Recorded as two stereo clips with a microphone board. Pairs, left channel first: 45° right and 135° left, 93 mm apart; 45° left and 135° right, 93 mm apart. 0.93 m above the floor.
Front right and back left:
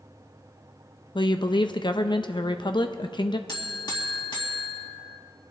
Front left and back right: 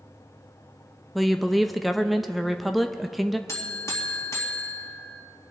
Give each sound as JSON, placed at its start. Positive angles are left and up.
{"t": 1.1, "sound": "a woman speaking", "azimuth_deg": -45, "distance_m": 0.6}
{"t": 3.5, "sound": "a buzzer", "azimuth_deg": -10, "distance_m": 2.0}